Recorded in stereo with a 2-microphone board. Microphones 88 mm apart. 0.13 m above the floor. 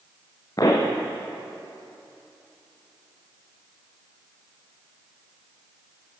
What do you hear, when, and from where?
0.6 s a pop: 45° left (ahead or behind), 4 m